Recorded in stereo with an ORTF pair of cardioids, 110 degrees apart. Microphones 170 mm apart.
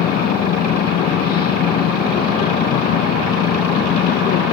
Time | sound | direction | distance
0.0 | a machine running | 65° left | ?